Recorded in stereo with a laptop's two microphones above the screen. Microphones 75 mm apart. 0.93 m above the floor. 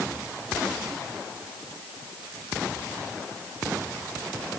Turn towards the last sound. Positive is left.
No sound to turn to.